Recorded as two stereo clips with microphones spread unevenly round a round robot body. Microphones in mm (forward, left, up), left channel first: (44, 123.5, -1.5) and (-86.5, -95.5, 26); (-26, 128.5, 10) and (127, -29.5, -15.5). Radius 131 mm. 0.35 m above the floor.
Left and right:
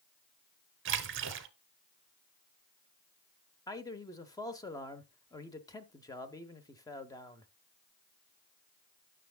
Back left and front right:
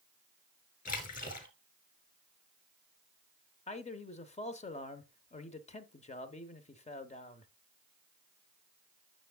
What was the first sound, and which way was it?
A splash, 165° right.